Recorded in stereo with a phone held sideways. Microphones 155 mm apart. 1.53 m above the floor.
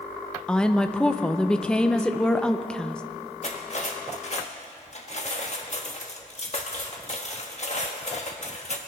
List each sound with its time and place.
0.5 s a woman speaking: 5° left (ahead or behind), 0.7 m
3.4 s cutlery clinking: 50° left (ahead or behind), 1.3 m